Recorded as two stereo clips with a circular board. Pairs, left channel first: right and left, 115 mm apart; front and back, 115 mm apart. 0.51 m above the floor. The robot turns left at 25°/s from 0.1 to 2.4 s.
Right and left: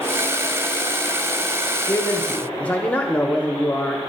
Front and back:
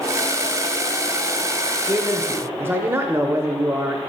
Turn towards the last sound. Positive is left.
turn(degrees=-150)